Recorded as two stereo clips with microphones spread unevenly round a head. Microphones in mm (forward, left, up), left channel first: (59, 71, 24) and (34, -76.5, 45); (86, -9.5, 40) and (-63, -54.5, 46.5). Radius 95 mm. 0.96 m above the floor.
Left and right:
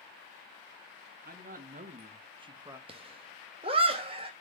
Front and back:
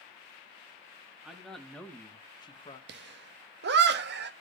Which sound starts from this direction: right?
A man speaking, at 1.2 s.